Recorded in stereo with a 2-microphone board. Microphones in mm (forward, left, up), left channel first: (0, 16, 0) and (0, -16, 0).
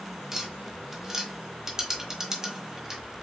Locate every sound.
0.3 s tapping: 15° right (ahead or behind), 1.4 m